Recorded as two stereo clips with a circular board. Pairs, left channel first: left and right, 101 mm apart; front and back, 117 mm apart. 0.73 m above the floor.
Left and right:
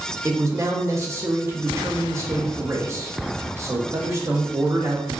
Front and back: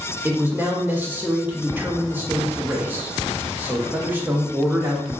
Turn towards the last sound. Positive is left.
turn(degrees=-120)